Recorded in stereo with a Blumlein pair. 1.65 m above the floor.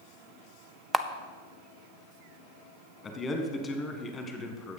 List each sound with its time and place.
0.9 s a camera shutter: 10° right, 0.5 m
3.0 s a man speaking: 20° left, 1.5 m